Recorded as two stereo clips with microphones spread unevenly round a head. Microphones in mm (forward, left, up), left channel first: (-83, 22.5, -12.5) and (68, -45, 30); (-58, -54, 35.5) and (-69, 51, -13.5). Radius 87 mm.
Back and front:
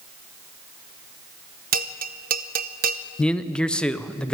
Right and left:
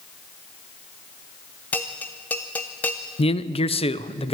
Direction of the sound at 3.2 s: 120° right.